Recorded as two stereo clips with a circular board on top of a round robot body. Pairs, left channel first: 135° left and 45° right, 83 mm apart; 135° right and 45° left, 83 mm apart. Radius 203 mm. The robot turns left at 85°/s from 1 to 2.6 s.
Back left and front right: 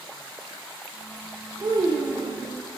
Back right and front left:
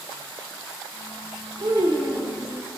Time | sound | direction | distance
1.6 | a child speaking | 10° left | 0.8 m